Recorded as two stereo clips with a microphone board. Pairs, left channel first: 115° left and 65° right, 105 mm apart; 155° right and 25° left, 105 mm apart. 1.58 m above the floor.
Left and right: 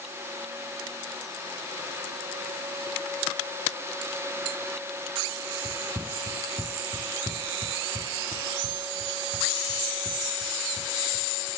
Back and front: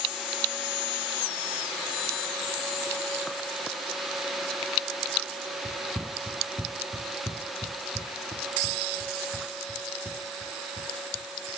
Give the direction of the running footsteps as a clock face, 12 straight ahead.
2 o'clock.